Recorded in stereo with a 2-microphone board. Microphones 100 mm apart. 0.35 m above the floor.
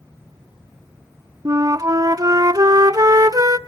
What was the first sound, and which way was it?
A flute, 40° right (ahead or behind).